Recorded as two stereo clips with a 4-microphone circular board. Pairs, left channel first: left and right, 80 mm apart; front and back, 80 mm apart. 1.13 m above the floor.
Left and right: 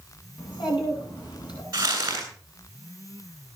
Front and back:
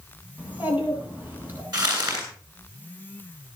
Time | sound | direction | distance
0.4 | a child speaking | 110° left | 8 m
1.7 | crumpling | 140° right | 8.5 m